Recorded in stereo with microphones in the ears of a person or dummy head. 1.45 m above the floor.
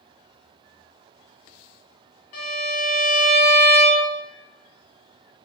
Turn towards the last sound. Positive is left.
turn(degrees=45)  # may be behind; listen again after turning